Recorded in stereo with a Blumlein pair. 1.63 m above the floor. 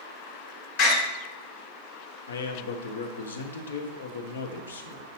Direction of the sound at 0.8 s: 45° left.